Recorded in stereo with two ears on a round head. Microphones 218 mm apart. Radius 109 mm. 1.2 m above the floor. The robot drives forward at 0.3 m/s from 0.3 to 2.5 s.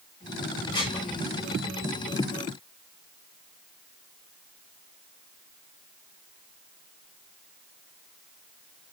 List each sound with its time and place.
0.7 s dishes clattering: 20° left (ahead or behind), 4 m